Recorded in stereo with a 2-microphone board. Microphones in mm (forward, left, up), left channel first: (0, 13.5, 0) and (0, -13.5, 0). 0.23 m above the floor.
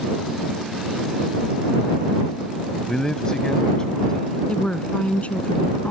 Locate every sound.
2.9 s a man speaking: 25° left (ahead or behind)
4.5 s a woman speaking: 50° left (ahead or behind)